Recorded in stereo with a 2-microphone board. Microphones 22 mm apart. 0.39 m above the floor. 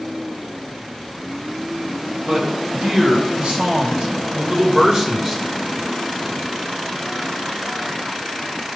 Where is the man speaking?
65° right (ahead or behind), 3 m; by 5.4 s 20° right (ahead or behind), 1.3 m.